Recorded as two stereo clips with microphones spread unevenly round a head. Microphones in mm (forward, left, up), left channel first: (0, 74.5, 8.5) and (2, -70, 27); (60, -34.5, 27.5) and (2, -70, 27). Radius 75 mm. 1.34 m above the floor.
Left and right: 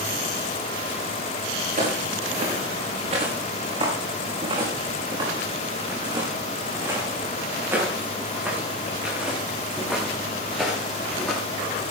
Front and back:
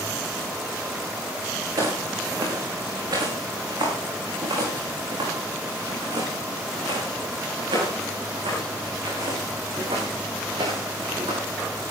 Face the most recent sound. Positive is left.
turn(degrees=180)